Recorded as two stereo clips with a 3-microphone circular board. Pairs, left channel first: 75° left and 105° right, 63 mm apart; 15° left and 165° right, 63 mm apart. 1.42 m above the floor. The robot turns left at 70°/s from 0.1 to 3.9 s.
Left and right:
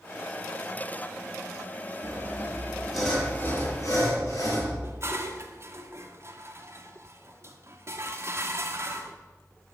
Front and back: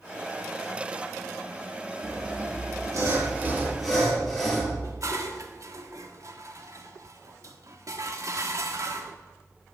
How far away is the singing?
I don't hear singing.